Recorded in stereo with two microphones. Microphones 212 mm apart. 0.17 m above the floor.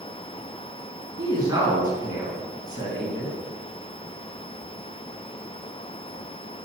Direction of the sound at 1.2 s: 20° right (ahead or behind).